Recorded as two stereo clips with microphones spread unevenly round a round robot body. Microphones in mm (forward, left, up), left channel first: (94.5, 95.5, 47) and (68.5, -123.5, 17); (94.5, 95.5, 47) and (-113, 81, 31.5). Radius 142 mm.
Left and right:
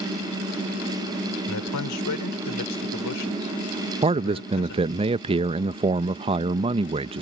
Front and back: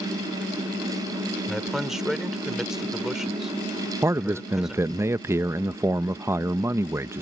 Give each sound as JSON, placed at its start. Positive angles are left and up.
{"t": 1.5, "sound": "a man speaking", "azimuth_deg": 95}
{"t": 4.0, "sound": "a man speaking", "azimuth_deg": -115}